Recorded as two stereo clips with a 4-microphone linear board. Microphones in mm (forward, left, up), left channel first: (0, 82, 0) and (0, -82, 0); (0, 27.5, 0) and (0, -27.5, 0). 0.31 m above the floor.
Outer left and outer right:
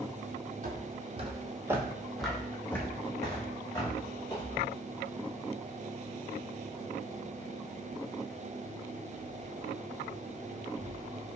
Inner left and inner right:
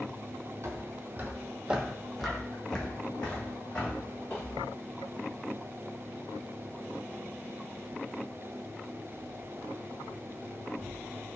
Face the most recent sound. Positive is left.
turn(degrees=30)  # may be behind; listen again after turning